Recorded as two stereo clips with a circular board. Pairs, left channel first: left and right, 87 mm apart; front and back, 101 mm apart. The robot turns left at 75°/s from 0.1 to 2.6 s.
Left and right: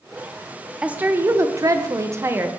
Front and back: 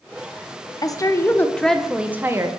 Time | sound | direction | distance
0.8 | a woman speaking | 15° right | 0.5 m